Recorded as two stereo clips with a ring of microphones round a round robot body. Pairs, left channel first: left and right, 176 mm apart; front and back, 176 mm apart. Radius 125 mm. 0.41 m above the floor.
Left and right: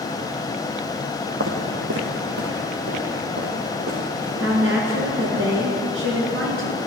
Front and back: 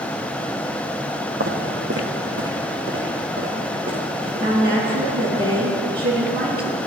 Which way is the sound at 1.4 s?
130° right.